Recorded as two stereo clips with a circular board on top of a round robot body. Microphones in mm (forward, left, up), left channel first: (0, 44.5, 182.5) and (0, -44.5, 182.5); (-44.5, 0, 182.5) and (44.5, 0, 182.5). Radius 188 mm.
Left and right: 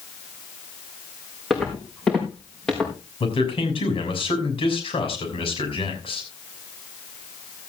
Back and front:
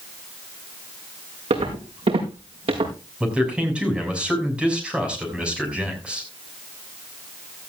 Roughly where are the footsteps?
Ahead.